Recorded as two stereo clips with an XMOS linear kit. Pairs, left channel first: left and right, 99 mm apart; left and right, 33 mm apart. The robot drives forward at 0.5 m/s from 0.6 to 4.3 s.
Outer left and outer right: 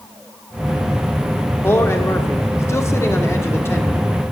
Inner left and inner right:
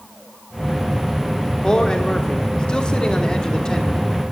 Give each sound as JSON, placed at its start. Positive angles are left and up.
{"t": 1.6, "sound": "a man speaking", "side_deg": 25, "distance_m": 1.1}